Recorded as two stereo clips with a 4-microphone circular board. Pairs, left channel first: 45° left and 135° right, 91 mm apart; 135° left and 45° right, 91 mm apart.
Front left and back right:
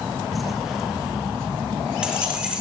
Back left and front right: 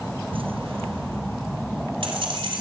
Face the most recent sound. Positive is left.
turn(degrees=-55)